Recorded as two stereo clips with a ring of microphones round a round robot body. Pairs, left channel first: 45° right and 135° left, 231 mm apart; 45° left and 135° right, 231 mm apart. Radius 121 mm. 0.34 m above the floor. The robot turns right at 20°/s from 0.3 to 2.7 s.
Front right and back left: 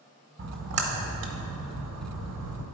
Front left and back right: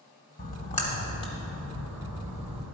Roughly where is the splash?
Left.